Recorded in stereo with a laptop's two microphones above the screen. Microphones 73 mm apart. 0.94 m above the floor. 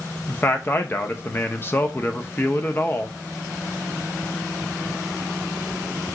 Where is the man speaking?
30° left (ahead or behind), 0.5 m.